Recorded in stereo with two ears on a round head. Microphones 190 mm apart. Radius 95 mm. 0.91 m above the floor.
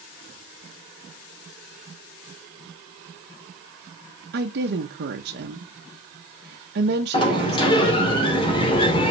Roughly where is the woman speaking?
Right.